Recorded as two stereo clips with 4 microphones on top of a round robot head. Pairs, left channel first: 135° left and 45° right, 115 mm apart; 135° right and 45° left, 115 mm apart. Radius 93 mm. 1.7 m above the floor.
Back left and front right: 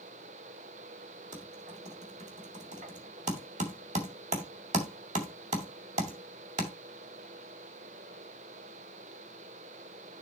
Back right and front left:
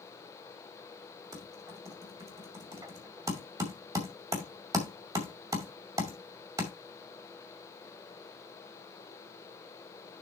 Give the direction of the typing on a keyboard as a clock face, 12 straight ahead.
1 o'clock.